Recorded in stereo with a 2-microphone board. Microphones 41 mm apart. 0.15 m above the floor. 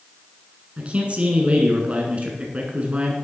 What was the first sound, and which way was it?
A man speaking, 35° right (ahead or behind).